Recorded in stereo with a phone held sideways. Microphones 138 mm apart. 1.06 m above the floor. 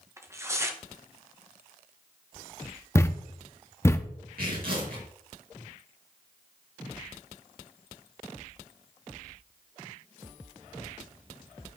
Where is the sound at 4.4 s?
75° right (ahead or behind), 4 m.